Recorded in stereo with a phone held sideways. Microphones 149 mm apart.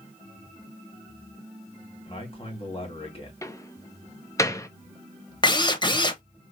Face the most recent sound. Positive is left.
turn(degrees=30)  # may be behind; listen again after turning